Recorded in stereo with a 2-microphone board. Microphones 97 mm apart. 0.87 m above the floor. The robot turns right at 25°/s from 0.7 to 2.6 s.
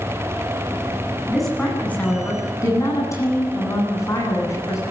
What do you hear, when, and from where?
1.3 s a woman speaking: straight ahead, 9.5 m; by 4.8 s 30° left, 9.5 m